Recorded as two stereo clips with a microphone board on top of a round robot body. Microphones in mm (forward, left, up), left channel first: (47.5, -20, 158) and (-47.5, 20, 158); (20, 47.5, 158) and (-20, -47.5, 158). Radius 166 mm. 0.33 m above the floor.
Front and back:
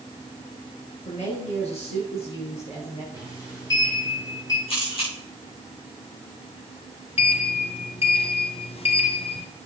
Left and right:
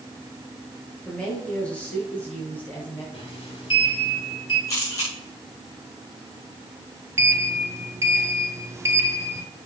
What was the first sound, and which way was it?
A woman speaking, 15° right.